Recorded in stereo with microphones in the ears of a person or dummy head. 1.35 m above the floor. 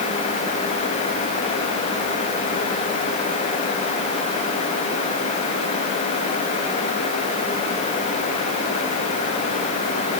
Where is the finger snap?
I don't hear a finger snap.